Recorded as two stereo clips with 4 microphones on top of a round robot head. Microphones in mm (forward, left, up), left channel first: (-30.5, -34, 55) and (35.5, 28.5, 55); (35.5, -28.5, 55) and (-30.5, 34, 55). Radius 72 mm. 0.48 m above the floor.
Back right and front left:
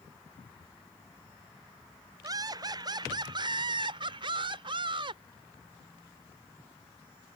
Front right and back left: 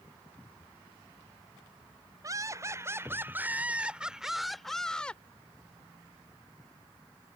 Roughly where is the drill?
I don't hear a drill.